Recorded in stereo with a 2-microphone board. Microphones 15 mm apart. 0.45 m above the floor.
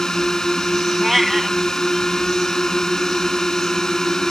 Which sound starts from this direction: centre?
A cat meowing, at 1.0 s.